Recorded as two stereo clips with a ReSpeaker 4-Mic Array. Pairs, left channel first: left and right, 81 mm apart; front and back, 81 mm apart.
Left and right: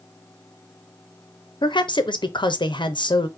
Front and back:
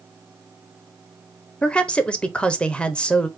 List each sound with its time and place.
1.6 s a woman speaking: 75° left, 0.8 m